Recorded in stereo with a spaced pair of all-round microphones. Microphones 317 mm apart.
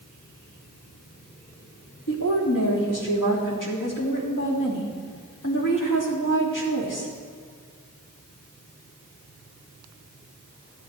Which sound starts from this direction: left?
A woman speaking, at 2.1 s.